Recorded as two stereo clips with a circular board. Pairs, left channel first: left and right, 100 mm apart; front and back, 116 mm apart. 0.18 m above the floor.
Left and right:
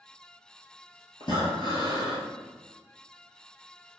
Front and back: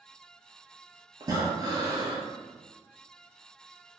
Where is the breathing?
125° left, 1.1 m.